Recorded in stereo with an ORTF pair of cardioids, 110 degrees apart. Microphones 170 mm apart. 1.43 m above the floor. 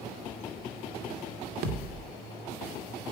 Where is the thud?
65° right, 2 m.